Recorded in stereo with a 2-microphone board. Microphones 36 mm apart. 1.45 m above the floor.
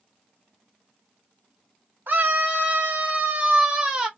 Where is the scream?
65° right (ahead or behind), 1.4 m; by 4.1 s 25° right (ahead or behind), 1.6 m.